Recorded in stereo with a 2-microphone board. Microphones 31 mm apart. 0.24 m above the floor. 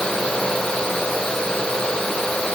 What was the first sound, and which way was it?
Only background noise.